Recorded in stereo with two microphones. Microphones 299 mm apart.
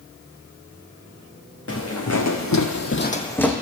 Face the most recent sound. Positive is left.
turn(degrees=0)  # may be behind; listen again after turning